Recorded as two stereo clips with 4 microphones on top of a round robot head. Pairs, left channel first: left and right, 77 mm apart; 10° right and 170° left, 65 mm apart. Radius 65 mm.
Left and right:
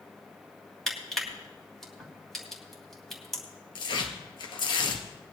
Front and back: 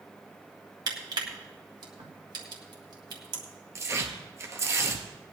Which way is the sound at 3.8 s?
120° left.